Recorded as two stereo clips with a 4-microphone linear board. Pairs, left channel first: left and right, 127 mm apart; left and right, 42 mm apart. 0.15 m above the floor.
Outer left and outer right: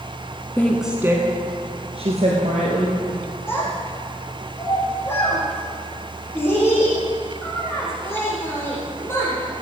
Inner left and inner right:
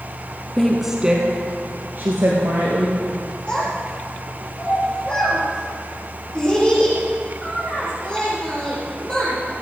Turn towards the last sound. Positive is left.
turn(degrees=20)  # may be behind; listen again after turning